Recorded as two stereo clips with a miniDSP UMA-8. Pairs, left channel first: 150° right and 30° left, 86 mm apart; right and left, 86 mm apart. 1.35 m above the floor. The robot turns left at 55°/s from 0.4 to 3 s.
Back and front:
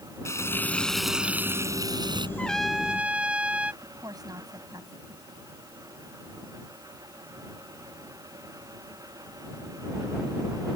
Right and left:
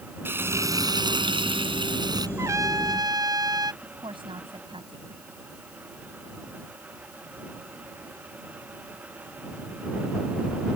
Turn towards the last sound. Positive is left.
turn(degrees=75)